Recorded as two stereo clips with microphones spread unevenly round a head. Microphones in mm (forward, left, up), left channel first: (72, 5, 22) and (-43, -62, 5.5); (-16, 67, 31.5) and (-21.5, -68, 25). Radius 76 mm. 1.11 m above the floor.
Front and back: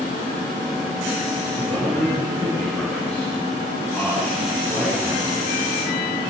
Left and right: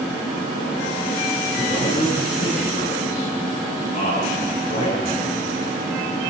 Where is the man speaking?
110° left, 10 m.